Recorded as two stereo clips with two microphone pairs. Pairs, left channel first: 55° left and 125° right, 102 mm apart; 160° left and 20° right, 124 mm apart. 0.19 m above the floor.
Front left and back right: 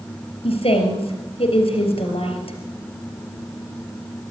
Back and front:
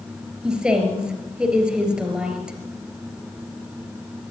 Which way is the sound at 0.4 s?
65° left.